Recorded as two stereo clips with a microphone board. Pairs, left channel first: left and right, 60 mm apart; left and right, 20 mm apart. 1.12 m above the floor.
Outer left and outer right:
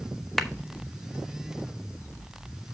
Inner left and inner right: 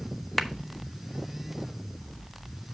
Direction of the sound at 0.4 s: Centre (ahead or behind).